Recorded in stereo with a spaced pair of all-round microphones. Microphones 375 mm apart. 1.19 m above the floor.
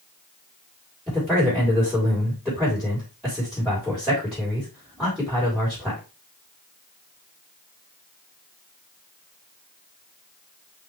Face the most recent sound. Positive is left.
turn(degrees=0)  # may be behind; listen again after turning